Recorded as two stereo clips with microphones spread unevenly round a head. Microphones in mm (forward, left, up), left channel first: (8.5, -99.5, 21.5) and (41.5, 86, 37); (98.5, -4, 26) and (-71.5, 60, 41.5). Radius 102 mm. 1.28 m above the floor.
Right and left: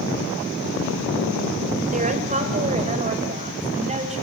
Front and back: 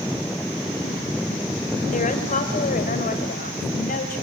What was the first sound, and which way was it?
A woman speaking, 30° left.